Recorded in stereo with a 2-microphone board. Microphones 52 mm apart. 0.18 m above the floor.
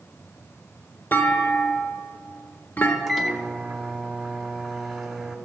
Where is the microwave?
Centre (ahead or behind), 0.9 m.